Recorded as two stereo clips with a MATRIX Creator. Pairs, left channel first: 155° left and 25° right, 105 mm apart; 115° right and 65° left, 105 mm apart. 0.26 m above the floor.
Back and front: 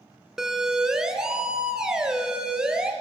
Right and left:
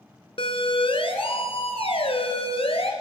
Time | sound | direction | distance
0.4 | a siren | 105° right | 2 m